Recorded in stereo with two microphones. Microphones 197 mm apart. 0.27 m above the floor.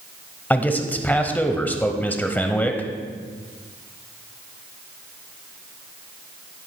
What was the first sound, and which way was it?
A man speaking, 10° left (ahead or behind).